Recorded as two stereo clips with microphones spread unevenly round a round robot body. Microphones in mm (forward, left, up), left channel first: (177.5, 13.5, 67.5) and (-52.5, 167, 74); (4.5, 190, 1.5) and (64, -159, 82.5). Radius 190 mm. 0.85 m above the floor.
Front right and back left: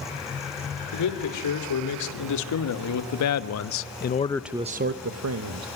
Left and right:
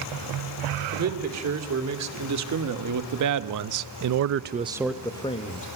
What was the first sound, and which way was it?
A man speaking, 30° right.